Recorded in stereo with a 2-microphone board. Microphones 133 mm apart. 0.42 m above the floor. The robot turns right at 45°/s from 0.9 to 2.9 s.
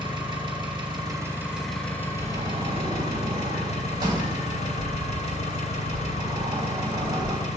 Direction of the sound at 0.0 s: 35° right.